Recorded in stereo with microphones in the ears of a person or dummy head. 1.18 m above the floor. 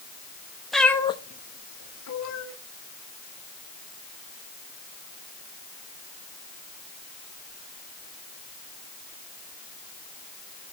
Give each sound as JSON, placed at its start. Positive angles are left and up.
{"t": 0.7, "sound": "a cat meowing", "side_deg": 0, "distance_m": 0.9}